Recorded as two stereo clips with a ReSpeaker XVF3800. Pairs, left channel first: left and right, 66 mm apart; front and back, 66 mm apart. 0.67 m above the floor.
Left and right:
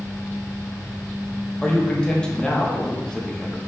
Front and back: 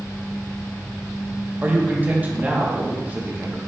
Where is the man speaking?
155° left, 0.7 m.